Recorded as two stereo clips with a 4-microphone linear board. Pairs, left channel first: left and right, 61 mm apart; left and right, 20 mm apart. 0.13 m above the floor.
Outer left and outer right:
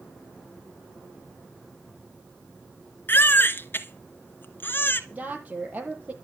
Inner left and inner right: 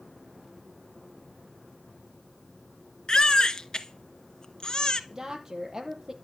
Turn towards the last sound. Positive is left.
turn(degrees=-30)  # may be behind; listen again after turning